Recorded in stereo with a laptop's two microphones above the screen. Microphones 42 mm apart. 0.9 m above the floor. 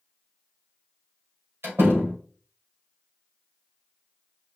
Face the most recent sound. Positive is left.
turn(degrees=-85)